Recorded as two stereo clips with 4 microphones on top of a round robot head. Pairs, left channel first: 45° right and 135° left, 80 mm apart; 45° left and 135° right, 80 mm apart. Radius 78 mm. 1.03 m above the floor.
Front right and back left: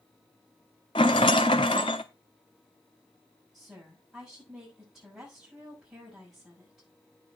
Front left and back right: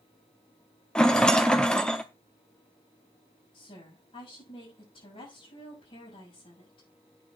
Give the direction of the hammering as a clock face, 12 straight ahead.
No hammering in this recording.